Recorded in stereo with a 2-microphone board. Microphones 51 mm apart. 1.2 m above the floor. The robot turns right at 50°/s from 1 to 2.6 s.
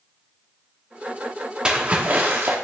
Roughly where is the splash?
Behind right.